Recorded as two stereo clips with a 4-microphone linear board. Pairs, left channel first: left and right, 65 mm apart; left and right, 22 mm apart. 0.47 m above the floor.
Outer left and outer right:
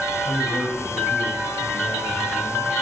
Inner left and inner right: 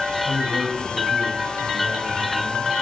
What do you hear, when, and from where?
0.2 s a man speaking: 25° left (ahead or behind), 3 m